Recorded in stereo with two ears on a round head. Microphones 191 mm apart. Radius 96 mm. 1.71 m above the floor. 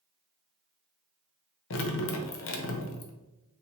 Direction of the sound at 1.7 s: 65° left (ahead or behind).